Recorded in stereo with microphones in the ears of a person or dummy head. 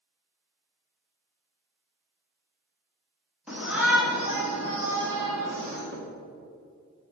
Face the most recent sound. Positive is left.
turn(degrees=-50)  # may be behind; listen again after turning